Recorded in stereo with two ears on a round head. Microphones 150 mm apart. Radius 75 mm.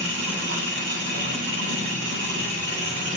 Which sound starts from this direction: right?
An engine running, at 0.0 s.